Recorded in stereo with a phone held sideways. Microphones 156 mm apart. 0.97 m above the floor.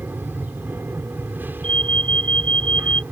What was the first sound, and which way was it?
An aircraft, 15° right (ahead or behind).